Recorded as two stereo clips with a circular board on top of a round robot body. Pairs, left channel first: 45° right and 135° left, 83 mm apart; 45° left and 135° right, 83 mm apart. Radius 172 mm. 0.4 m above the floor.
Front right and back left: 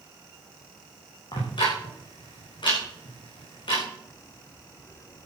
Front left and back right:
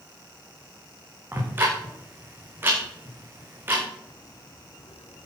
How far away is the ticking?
About 6.5 m.